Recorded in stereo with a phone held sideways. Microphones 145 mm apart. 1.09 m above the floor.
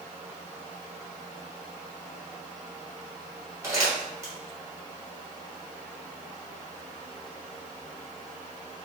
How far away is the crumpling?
About 1.1 m.